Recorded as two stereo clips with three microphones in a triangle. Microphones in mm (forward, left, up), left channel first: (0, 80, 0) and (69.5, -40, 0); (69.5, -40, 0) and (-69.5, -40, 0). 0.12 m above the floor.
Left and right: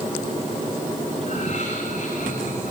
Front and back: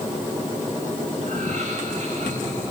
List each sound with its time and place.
1.2 s laughter: 150° left, 9.5 m; by 2.7 s 140° left, 11 m